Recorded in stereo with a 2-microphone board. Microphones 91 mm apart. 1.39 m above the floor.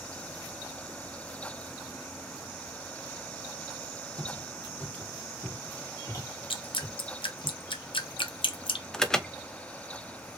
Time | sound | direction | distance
4.2 | footsteps | 5° left (ahead or behind) | 3 m
6.5 | dripping | 65° left (ahead or behind) | 0.9 m
8.9 | an alarm | 10° left (ahead or behind) | 0.7 m